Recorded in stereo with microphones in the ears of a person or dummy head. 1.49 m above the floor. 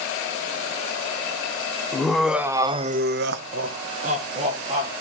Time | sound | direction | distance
1.9 | laughter | 5° left (ahead or behind) | 1.2 m